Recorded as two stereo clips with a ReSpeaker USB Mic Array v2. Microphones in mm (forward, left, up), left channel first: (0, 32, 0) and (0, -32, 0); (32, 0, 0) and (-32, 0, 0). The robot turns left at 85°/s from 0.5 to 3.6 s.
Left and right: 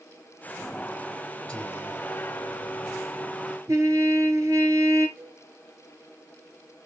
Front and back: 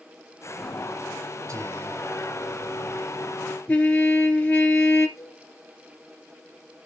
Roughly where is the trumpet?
Ahead right.